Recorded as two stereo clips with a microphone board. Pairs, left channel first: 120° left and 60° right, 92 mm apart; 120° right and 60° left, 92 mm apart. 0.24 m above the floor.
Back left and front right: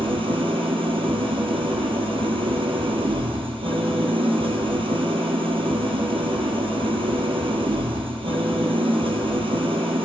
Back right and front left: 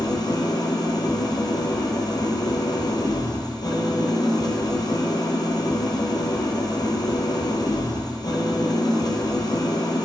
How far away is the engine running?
About 1.3 m.